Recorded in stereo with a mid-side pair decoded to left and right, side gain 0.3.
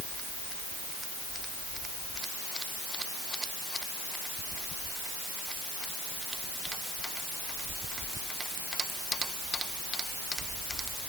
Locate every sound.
Only background noise.